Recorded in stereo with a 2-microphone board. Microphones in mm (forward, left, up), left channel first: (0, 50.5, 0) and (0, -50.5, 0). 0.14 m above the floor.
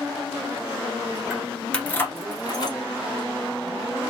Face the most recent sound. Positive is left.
turn(degrees=50)  # may be behind; listen again after turning